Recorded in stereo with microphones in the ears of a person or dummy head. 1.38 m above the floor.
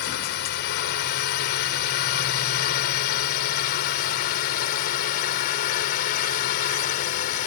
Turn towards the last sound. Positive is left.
turn(degrees=50)  # may be behind; listen again after turning